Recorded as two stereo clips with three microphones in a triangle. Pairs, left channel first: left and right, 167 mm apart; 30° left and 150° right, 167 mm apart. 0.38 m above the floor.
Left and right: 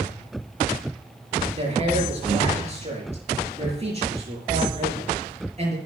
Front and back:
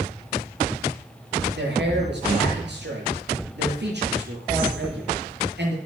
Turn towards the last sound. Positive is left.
turn(degrees=-145)